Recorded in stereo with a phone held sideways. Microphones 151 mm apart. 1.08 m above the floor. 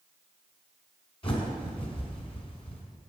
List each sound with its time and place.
1.2 s a bird: 40° left (ahead or behind), 1.7 m